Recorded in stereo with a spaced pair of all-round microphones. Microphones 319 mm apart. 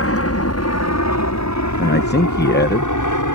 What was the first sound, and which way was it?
An aircraft, 45° left (ahead or behind).